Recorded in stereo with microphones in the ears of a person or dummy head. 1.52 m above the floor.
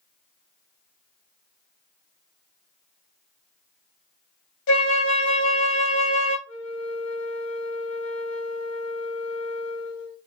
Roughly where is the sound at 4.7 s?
Left.